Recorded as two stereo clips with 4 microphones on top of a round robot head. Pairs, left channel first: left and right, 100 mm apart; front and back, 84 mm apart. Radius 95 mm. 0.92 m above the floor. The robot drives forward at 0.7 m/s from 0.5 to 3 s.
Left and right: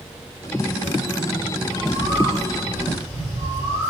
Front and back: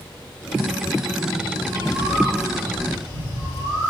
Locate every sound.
1.6 s a bird: 135° left, 4 m; by 3.9 s 145° left, 4.5 m